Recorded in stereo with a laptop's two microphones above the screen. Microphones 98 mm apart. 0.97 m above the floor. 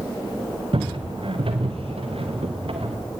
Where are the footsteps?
60° right (ahead or behind), 3 m; by 3.0 s 70° right (ahead or behind), 5 m.